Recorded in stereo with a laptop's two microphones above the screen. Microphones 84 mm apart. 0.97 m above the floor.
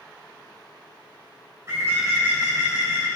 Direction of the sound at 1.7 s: 30° right (ahead or behind).